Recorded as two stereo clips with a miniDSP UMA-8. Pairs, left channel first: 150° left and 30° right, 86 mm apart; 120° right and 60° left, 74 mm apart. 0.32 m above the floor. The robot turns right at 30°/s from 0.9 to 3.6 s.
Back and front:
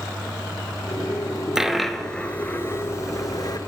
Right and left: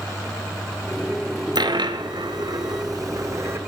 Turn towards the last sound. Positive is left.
turn(degrees=115)